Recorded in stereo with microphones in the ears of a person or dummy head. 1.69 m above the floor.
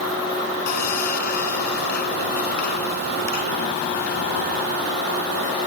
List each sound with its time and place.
0.7 s sawing: 50° left (ahead or behind)